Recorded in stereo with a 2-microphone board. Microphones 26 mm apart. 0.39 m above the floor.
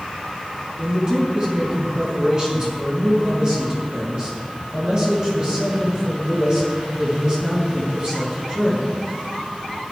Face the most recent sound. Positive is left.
turn(degrees=-30)  # may be behind; listen again after turning